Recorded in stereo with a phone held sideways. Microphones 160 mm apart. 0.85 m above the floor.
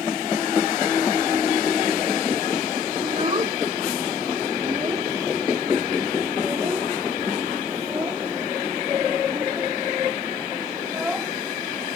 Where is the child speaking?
40° right (ahead or behind); by 11.9 s 5° right (ahead or behind).